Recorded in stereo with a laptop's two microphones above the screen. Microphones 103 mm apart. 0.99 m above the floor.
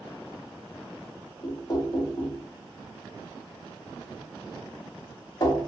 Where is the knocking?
40° left (ahead or behind), 0.9 m.